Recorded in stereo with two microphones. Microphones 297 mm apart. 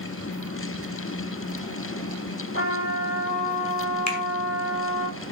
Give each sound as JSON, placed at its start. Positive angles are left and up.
{"t": 2.5, "sound": "a trumpet", "side_deg": 35, "distance_m": 8.5}
{"t": 4.1, "sound": "a finger snap", "side_deg": 65, "distance_m": 2.5}